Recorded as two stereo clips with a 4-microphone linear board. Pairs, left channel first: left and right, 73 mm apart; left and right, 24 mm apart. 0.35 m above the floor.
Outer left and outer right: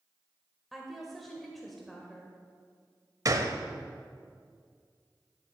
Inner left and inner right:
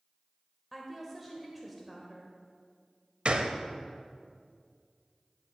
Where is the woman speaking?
Centre (ahead or behind), 1.1 m.